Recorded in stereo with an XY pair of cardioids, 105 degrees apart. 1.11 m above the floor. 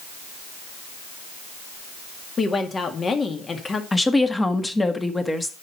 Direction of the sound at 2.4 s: 35° left.